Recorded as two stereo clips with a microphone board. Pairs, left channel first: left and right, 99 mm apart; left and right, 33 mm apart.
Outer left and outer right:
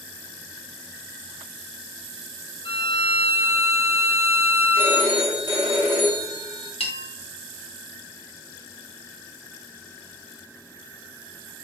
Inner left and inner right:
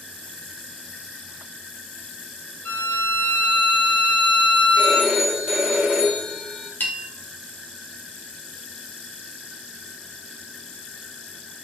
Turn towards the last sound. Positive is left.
turn(degrees=75)  # may be behind; listen again after turning